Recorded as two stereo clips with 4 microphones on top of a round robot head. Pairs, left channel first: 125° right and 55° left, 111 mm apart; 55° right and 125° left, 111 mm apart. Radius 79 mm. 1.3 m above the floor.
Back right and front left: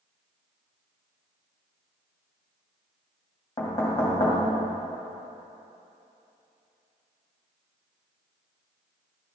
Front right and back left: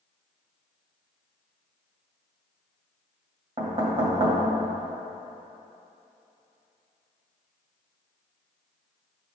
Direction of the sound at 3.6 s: 170° left.